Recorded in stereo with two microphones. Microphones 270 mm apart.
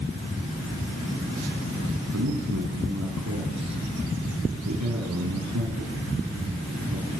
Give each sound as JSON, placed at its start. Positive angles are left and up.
{"t": 2.1, "sound": "a man speaking", "side_deg": -80, "distance_m": 4.5}